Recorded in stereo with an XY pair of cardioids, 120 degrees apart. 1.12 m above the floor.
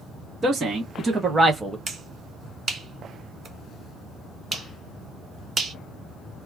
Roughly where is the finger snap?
Ahead right.